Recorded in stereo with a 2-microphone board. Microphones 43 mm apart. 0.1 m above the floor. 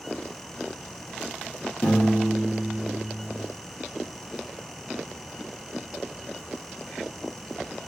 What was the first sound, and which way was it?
A piano, 55° left (ahead or behind).